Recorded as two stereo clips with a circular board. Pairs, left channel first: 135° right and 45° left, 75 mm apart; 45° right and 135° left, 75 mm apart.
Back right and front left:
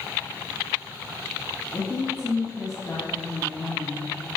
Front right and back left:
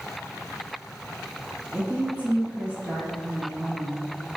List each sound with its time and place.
1.7 s a woman speaking: 155° right, 1.5 m